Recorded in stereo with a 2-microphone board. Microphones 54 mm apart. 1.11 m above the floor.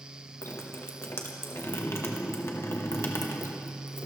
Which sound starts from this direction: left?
Dripping, at 0.4 s.